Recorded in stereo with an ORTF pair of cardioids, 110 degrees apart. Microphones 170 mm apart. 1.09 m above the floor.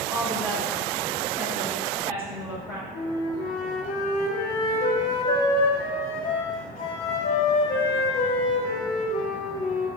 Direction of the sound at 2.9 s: 50° left.